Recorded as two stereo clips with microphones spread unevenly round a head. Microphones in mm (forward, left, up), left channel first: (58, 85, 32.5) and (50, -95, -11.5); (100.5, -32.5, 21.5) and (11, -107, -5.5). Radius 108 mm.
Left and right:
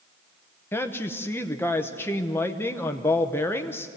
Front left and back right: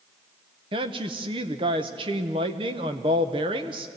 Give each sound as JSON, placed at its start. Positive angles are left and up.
{"t": 0.7, "sound": "a woman speaking", "azimuth_deg": 170, "distance_m": 0.9}